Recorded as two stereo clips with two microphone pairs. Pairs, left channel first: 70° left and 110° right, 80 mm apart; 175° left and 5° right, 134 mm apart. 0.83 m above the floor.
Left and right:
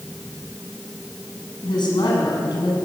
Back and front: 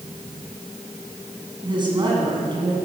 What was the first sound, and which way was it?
A woman speaking, 50° left.